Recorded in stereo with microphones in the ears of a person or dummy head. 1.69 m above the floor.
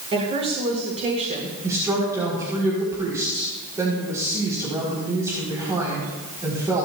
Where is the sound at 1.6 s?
15° right (ahead or behind), 4 m.